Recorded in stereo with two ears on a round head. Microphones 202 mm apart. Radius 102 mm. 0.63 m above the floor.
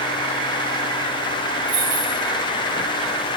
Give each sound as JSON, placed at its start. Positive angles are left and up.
{"t": 1.7, "sound": "keys jangling", "side_deg": -55, "distance_m": 4.0}